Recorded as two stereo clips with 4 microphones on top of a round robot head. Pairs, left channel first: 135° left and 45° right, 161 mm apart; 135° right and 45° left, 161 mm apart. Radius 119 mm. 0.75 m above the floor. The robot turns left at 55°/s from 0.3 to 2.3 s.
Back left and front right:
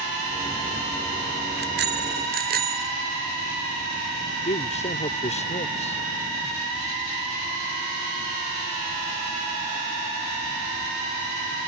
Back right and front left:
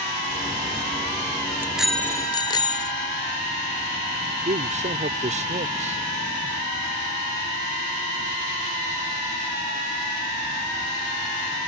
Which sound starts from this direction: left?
A man speaking, at 4.5 s.